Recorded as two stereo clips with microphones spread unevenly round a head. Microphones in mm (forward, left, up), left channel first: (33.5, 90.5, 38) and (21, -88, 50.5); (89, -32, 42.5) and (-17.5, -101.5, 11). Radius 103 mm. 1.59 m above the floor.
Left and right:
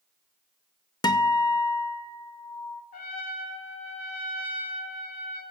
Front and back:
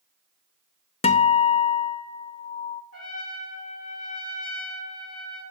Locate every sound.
1.0 s a guitar: 20° left, 0.6 m
2.9 s a trumpet: 45° left, 2.5 m